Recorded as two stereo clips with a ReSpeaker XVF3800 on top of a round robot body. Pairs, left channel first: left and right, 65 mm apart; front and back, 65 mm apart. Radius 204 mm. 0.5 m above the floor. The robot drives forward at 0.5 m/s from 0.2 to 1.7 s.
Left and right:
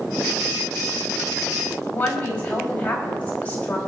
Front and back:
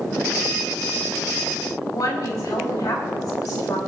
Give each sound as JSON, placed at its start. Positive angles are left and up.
{"t": 1.9, "sound": "a woman speaking", "azimuth_deg": 20, "distance_m": 5.0}